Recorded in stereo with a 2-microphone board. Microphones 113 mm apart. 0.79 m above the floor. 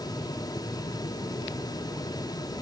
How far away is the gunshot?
No gunshot in this recording.